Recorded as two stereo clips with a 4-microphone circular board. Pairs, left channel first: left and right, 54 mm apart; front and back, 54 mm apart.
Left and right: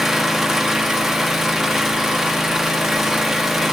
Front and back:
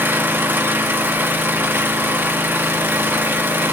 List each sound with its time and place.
0.0 s an engine running: 170° right, 1.1 m